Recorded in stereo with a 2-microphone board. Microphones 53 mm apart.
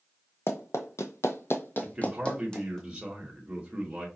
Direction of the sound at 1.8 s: 15° right (ahead or behind).